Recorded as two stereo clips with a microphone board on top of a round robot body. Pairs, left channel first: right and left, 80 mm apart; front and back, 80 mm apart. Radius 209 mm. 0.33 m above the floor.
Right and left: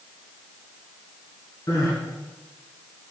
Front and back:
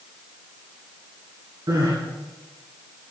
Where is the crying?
135° right, 2.5 m.